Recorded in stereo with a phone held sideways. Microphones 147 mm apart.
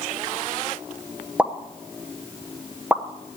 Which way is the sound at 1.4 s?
10° right (ahead or behind).